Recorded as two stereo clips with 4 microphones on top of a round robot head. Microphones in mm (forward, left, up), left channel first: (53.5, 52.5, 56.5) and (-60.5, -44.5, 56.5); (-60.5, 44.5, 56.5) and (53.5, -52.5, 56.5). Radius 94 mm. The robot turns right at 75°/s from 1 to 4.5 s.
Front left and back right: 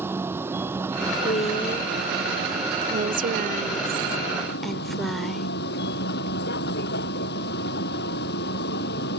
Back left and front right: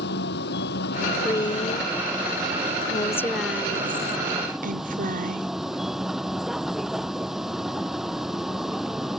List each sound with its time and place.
0.0 s a vehicle: 145° left; by 9.2 s 45° left
1.2 s a woman speaking: 65° left; by 5.5 s 50° right